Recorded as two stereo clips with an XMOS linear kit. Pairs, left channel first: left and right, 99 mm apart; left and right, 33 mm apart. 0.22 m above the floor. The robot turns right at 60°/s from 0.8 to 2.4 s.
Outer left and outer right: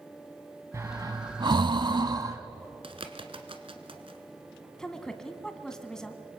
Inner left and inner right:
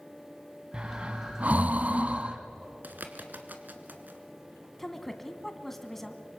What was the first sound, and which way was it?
Breathing, 30° right (ahead or behind).